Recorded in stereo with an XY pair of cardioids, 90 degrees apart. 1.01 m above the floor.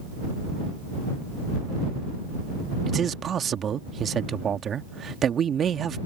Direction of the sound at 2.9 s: 55° right.